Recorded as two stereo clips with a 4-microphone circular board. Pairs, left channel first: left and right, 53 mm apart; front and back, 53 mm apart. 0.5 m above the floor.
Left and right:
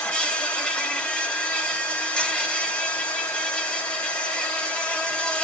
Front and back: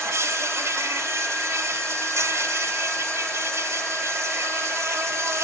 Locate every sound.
0.0 s an insect: 160° left, 2 m